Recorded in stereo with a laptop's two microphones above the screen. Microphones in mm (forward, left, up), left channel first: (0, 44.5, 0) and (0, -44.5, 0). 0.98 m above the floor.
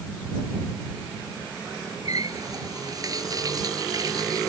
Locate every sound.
2.0 s a running tap: 45° right (ahead or behind)